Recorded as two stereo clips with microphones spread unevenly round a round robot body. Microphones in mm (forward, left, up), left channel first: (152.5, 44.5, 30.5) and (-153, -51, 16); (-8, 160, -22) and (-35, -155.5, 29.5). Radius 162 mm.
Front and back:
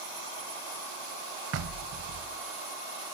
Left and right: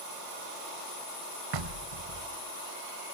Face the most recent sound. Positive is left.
turn(degrees=-115)